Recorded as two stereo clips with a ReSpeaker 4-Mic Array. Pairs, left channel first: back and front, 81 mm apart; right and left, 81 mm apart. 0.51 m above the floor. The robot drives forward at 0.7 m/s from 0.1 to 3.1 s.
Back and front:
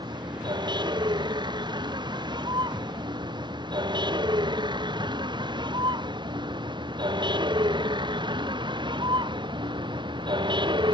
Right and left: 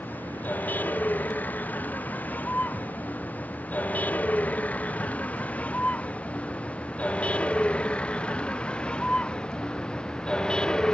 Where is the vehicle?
20° right; by 10.9 s 10° right.